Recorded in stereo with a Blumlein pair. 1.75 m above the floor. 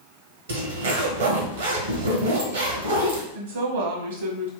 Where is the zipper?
65° right, 0.9 m.